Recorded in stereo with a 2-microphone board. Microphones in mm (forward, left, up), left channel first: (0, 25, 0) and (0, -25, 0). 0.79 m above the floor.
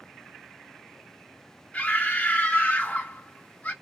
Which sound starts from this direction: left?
A scream, at 1.7 s.